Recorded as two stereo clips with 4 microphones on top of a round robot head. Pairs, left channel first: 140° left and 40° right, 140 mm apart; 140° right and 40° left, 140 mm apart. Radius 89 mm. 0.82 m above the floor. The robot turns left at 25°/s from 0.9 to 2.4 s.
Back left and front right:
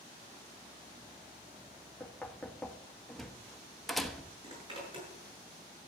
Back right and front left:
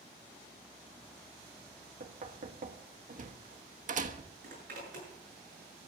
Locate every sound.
2.0 s knocking: 60° left, 1.2 m; by 4.3 s 50° left, 1.2 m
4.4 s a zipper: 15° left, 7 m